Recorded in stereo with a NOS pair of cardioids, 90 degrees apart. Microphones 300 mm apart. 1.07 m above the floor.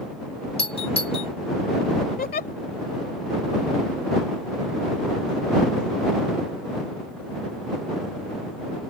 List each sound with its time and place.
0.6 s a doorbell: 20° left
2.2 s a giggle: 30° left